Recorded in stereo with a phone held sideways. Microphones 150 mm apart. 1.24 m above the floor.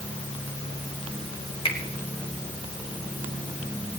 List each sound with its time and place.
1.6 s a finger snap: 40° left (ahead or behind), 2.5 m